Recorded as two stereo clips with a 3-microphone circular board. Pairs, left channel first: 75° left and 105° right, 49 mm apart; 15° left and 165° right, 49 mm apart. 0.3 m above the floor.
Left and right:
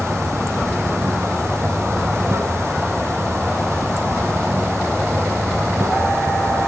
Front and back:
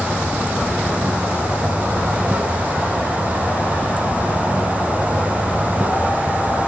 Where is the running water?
110° right, 1.1 m.